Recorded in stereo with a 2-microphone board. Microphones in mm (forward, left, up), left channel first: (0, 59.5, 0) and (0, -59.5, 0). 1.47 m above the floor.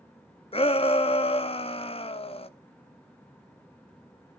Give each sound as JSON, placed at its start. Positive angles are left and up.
{"t": 0.5, "sound": "a shout", "side_deg": 50, "distance_m": 0.7}